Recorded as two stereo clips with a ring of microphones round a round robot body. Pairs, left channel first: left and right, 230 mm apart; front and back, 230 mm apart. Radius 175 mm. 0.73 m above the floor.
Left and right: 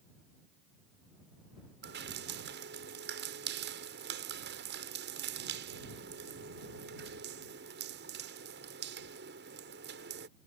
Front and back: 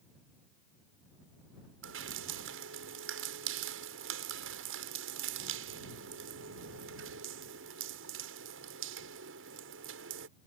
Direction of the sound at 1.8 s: 140° right.